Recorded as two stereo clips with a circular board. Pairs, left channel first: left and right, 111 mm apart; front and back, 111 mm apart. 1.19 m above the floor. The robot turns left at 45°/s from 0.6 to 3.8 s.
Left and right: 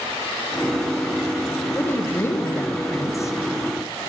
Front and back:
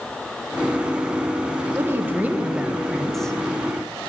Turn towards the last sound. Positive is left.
turn(degrees=55)